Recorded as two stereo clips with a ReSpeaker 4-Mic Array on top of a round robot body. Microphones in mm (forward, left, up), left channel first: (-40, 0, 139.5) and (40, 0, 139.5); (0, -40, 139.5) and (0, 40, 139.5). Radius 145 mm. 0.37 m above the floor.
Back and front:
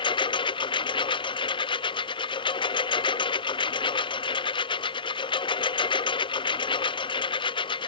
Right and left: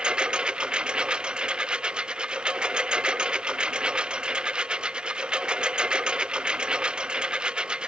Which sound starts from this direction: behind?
A lawn mower, at 0.0 s.